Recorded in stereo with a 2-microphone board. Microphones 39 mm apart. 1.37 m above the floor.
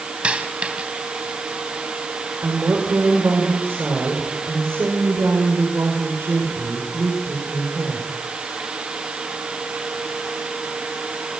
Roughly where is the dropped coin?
Right.